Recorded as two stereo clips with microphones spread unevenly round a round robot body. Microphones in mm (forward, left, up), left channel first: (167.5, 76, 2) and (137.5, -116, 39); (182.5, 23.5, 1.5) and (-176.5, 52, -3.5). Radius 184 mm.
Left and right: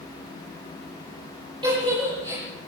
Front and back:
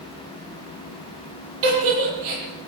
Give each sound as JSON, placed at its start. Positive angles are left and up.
{"t": 1.6, "sound": "a giggle", "azimuth_deg": -175, "distance_m": 9.0}